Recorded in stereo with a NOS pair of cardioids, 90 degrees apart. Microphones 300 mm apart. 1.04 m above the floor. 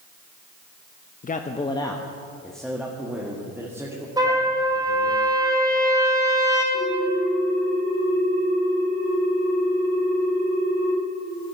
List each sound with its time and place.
1.2 s a man speaking: 30° left, 0.8 m; by 5.2 s 10° right, 3 m
4.2 s a trumpet: 15° right, 3.5 m
6.7 s a ringtone: 60° right, 6 m